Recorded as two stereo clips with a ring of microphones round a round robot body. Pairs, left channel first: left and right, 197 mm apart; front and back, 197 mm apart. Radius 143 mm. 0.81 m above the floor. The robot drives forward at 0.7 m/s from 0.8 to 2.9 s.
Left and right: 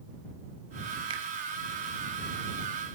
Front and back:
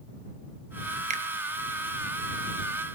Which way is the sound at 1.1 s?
145° right.